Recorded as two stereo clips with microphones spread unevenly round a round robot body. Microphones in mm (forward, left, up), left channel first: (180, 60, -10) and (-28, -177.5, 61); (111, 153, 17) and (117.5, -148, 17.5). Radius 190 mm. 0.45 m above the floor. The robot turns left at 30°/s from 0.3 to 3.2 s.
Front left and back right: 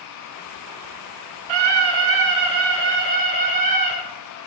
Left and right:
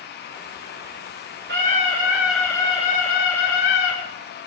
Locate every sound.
1.5 s a scream: 155° right, 6.5 m; by 4.0 s 155° left, 6.5 m